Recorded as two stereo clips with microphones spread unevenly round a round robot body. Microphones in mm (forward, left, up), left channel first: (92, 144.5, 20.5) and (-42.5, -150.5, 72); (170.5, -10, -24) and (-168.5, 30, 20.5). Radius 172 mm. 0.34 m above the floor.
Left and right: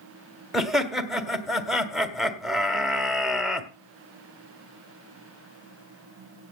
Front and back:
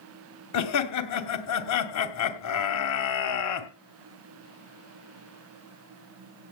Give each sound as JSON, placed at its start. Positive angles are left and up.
{"t": 0.5, "sound": "laughter", "azimuth_deg": -20, "distance_m": 1.8}